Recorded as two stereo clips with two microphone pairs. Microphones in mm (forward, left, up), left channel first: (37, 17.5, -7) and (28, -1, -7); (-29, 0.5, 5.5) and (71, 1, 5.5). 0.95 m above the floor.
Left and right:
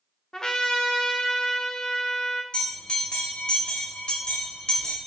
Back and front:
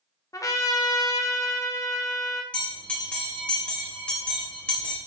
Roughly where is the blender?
No blender in this recording.